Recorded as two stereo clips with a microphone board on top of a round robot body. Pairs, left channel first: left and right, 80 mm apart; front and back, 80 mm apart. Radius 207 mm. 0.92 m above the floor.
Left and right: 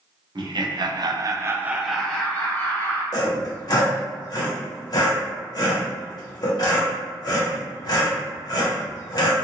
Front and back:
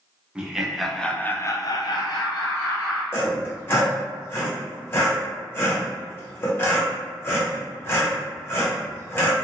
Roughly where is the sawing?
Ahead left.